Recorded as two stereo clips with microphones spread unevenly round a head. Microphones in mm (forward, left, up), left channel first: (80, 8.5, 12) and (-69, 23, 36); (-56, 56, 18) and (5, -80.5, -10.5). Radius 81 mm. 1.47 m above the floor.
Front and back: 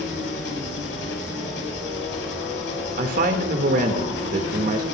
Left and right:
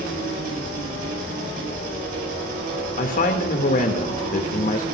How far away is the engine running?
About 6 m.